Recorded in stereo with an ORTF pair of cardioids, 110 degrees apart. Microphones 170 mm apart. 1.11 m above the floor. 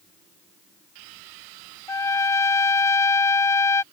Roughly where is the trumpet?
Ahead.